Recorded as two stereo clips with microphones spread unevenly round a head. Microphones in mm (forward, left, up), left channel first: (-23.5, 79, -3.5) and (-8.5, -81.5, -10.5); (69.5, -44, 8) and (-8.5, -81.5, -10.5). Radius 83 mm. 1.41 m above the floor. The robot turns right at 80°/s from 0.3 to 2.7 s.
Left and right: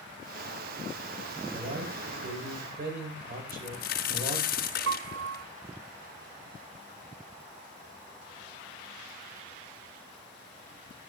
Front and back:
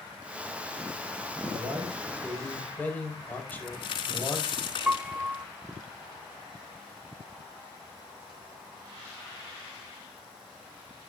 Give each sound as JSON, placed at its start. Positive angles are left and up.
{"t": 1.5, "sound": "a man speaking", "azimuth_deg": -140, "distance_m": 7.0}
{"t": 3.5, "sound": "a crack", "azimuth_deg": 60, "distance_m": 4.0}
{"t": 4.9, "sound": "a piano", "azimuth_deg": -75, "distance_m": 0.5}